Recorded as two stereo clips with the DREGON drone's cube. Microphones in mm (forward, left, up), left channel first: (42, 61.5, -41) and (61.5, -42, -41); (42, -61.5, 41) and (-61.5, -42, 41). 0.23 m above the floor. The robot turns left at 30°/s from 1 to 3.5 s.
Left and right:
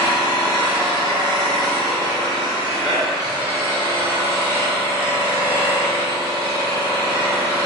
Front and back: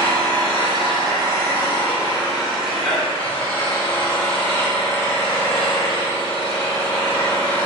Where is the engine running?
130° left, 1.6 m; by 7.7 s 55° left, 1.6 m.